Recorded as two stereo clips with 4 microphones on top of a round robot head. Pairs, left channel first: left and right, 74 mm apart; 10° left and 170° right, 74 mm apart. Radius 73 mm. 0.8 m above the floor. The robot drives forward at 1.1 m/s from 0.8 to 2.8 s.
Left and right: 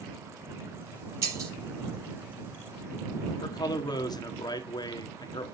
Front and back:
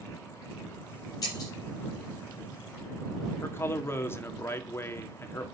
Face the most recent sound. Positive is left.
turn(degrees=65)